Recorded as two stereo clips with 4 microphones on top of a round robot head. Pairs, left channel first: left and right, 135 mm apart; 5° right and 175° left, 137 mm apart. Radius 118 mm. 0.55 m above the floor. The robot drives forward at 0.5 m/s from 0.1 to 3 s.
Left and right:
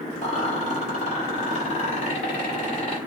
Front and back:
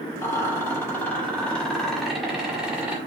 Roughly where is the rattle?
Ahead left.